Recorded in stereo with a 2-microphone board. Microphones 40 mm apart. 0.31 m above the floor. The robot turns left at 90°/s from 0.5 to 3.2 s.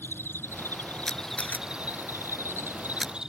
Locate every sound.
0.0 s an insect: 80° left; by 3.3 s 160° right
1.1 s a camera shutter: 10° left (ahead or behind); by 3.1 s 15° right (ahead or behind)